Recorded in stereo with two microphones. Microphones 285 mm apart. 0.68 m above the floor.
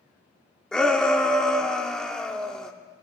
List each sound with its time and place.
0.7 s a shout: centre (ahead or behind), 1.3 m